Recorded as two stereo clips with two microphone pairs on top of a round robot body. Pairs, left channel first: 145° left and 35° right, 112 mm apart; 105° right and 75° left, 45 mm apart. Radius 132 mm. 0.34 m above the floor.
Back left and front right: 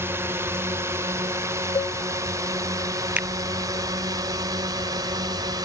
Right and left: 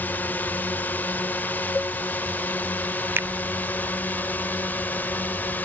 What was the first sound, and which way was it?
A drone, 95° right.